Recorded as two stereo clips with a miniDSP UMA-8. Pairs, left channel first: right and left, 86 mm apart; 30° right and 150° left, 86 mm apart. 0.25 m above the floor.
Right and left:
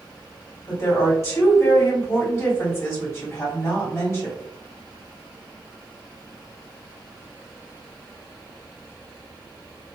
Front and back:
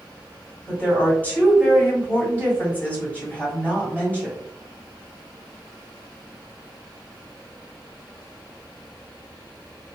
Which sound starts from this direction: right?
A woman speaking, at 0.7 s.